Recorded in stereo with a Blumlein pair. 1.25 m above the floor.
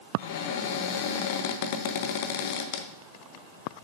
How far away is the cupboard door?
About 0.8 m.